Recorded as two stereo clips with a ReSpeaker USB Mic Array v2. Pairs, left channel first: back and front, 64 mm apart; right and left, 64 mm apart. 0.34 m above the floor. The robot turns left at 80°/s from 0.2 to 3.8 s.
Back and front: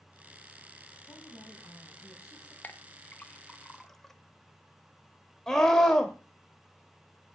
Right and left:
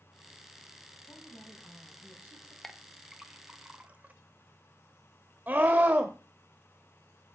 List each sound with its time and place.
1.1 s a woman speaking: 115° right, 3 m; by 2.5 s 125° left, 3 m
2.6 s a clink: 165° right, 0.5 m; by 4.1 s 100° left, 0.5 m
5.5 s a scream: 105° left, 1.0 m